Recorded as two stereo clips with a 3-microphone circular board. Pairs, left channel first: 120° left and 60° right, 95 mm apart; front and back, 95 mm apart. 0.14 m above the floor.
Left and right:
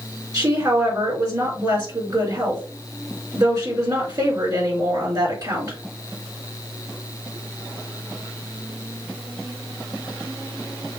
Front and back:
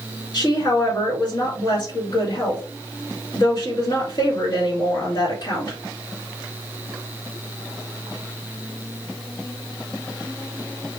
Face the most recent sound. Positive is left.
turn(degrees=-25)